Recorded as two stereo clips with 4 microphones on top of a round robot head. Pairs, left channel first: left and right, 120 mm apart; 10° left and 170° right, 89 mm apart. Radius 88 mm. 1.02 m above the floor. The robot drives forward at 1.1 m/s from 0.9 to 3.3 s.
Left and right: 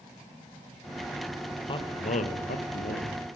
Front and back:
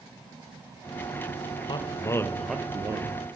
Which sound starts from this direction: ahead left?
A man speaking, at 1.7 s.